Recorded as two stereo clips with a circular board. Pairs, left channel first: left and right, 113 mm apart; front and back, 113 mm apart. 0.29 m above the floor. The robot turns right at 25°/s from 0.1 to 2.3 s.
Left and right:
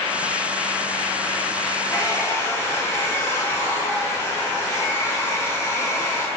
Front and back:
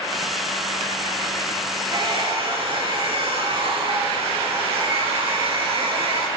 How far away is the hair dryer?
About 4 m.